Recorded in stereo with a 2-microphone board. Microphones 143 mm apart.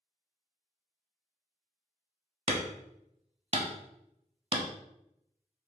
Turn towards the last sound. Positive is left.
turn(degrees=-45)  # may be behind; listen again after turning